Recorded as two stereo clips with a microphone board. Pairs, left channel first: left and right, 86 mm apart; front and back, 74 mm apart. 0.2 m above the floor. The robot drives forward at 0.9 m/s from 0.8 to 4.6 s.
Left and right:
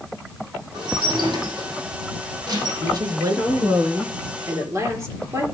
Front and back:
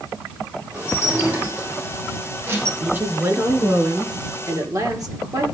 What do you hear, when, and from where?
0.7 s dishes clattering: 105° right, 5.5 m; by 2.7 s 120° right, 6.5 m
2.8 s a woman speaking: 120° right, 2.5 m; by 5.5 s 145° right, 3.5 m